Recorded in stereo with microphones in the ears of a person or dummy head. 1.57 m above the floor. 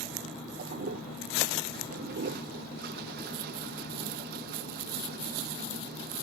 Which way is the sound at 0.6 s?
60° right (ahead or behind).